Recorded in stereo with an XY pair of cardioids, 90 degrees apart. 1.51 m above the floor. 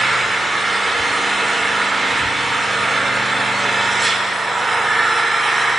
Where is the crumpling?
No crumpling in this recording.